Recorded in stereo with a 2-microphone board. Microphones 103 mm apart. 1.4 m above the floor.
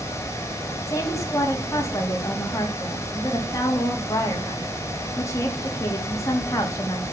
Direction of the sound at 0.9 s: 30° left (ahead or behind).